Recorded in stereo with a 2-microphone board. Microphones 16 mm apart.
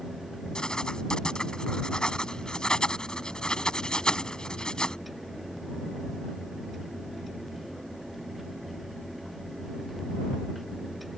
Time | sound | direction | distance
0.6 | writing | 65° left (ahead or behind) | ?